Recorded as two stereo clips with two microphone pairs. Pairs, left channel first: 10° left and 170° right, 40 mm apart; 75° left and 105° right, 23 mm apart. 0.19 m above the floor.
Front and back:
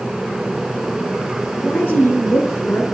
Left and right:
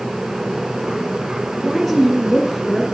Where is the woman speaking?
10° right, 3 m.